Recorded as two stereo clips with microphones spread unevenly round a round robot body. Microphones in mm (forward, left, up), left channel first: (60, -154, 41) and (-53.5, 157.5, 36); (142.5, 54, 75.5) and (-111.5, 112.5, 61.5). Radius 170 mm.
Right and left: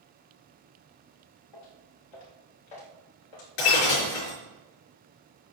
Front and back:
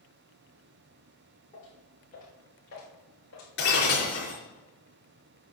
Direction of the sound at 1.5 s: 80° right.